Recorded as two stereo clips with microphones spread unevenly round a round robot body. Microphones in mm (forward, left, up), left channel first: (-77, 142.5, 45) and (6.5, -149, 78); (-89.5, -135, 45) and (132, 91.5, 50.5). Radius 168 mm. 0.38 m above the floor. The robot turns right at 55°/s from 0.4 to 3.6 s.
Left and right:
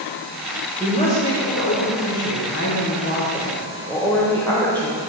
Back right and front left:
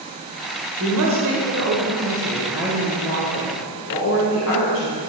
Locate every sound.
0.8 s a woman speaking: 30° left, 1.6 m; by 5.0 s 175° right, 1.6 m